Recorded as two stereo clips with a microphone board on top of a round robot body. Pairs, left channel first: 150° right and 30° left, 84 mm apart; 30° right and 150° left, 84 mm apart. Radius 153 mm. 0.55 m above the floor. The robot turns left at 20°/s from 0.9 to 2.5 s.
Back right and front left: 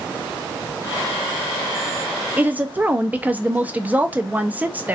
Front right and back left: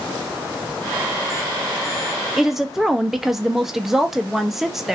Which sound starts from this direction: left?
A woman speaking, at 2.4 s.